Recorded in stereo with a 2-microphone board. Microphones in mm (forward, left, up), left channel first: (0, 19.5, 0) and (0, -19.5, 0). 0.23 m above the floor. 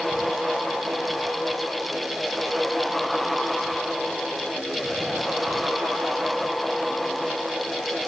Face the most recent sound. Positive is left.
No sound to turn to.